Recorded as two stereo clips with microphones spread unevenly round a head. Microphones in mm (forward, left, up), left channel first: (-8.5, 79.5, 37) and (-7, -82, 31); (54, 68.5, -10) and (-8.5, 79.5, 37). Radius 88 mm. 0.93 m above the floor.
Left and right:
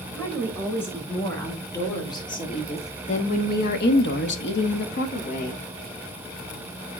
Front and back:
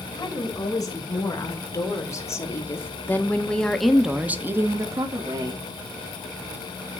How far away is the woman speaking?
About 4 m.